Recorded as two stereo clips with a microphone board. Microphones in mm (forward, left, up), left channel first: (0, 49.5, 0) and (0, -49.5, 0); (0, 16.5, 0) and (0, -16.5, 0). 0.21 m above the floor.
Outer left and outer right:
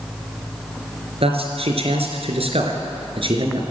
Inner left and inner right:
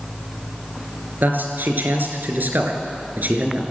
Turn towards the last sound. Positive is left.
turn(degrees=-55)  # may be behind; listen again after turning